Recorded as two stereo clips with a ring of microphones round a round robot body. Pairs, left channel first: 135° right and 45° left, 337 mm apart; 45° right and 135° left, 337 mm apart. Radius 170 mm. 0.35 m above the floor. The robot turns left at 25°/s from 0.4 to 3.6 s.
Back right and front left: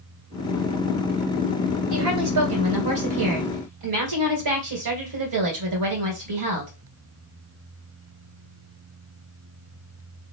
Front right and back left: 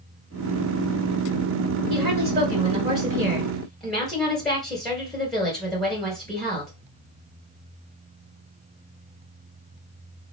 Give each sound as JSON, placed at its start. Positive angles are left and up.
{"t": 1.9, "sound": "a woman speaking", "azimuth_deg": 85, "distance_m": 2.0}